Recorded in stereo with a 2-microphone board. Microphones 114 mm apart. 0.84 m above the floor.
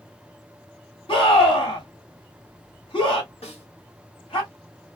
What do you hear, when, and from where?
1.1 s a scream: 50° left (ahead or behind), 2 m
3.4 s a snare drum: 70° left (ahead or behind), 1.9 m